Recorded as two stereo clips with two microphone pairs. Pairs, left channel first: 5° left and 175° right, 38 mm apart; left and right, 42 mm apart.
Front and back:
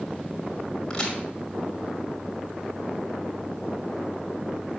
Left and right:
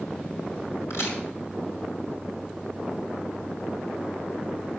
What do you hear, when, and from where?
0.9 s a crack: 80° left, 5 m